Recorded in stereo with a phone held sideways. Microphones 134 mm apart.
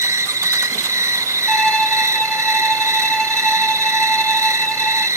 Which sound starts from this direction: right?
An insect, at 0.0 s.